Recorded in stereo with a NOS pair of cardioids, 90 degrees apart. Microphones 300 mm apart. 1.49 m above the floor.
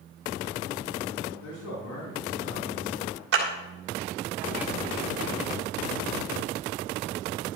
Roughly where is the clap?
Ahead right.